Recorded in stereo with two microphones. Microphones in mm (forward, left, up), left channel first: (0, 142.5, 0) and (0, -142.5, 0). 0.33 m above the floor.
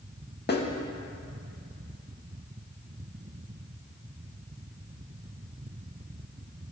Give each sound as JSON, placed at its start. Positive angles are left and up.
{"t": 0.5, "sound": "a snare drum", "side_deg": 35, "distance_m": 0.6}